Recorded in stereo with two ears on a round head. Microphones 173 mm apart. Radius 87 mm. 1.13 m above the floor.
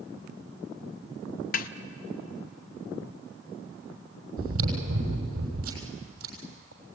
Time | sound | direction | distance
1.5 | a snare drum | 45° left (ahead or behind) | 0.8 m
4.4 | chewing | 80° right | 6.5 m